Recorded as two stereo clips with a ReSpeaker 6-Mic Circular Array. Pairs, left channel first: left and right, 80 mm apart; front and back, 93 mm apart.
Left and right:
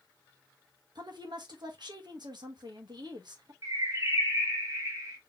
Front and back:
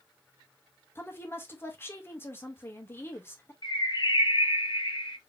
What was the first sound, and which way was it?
A woman speaking, 65° right.